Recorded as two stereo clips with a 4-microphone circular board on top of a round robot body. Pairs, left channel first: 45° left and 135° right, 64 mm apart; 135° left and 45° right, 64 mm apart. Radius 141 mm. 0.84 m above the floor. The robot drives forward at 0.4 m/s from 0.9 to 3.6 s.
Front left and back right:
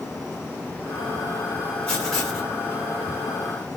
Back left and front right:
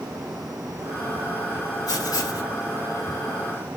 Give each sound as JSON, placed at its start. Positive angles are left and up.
{"t": 1.9, "sound": "writing", "azimuth_deg": 120, "distance_m": 2.0}